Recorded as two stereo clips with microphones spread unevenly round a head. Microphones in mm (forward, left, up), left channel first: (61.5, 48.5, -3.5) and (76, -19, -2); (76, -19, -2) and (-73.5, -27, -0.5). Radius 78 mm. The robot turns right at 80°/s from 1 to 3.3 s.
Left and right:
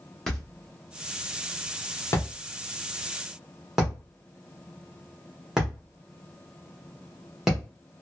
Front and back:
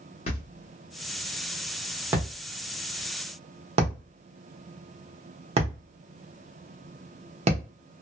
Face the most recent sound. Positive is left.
turn(degrees=-160)